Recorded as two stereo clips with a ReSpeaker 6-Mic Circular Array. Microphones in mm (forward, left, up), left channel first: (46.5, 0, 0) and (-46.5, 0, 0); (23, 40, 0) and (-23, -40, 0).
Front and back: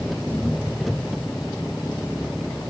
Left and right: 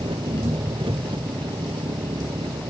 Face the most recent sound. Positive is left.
turn(degrees=-90)